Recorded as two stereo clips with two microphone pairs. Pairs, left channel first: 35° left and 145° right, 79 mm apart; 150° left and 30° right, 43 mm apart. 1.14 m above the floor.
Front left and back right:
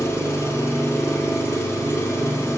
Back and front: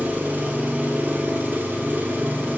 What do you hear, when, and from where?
0.0 s an engine running: 5° right, 0.8 m